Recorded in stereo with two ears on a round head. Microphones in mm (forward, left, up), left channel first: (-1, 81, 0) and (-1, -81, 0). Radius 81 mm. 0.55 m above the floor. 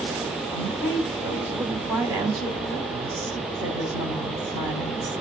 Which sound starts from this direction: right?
A woman speaking, at 0.5 s.